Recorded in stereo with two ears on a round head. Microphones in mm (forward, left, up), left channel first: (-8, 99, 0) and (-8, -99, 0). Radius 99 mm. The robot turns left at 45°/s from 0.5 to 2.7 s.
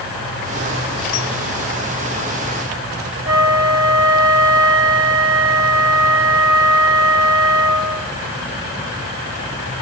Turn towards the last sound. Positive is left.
turn(degrees=-65)  # may be behind; listen again after turning